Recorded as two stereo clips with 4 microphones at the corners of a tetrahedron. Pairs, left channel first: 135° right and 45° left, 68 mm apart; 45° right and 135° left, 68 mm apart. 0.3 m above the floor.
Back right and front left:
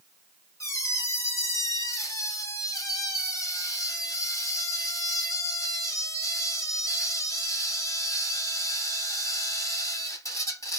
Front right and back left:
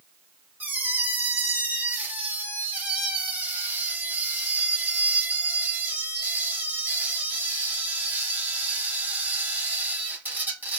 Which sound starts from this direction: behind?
A squeak, at 0.6 s.